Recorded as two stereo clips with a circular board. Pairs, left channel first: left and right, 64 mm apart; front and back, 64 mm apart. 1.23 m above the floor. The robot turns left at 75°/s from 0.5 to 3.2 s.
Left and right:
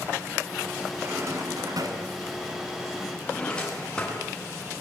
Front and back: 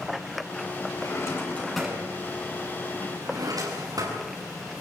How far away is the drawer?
About 8.5 m.